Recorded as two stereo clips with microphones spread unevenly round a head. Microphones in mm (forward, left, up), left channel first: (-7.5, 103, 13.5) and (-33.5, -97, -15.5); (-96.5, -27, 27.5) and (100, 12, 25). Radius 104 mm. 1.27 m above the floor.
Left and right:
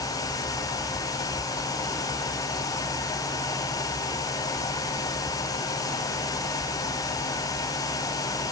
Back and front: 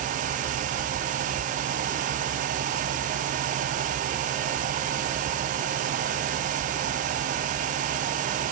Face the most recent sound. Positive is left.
No sound to turn to.